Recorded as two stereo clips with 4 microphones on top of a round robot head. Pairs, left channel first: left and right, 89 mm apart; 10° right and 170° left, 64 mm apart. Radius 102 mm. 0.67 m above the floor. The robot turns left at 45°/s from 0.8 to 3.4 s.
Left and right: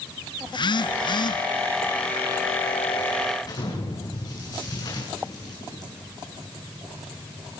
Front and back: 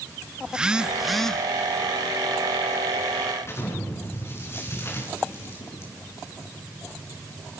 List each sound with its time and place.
0.5 s a phone buzzing: 95° left, 1.1 m; by 1.4 s 70° left, 1.1 m
3.4 s an explosion: 40° left, 7.5 m